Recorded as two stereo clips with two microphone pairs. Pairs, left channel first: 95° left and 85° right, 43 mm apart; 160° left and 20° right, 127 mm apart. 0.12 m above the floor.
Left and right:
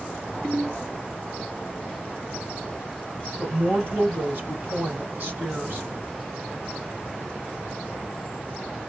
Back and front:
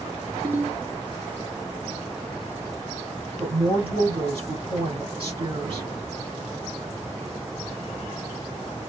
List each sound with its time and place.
0.4 s a ringtone: 50° right, 1.3 m
3.4 s a woman speaking: 50° right, 1.5 m